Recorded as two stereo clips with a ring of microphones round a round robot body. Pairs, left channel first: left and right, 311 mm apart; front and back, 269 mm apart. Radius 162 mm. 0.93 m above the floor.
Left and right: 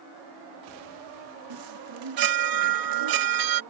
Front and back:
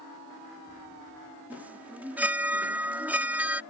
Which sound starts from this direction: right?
A chime, at 1.5 s.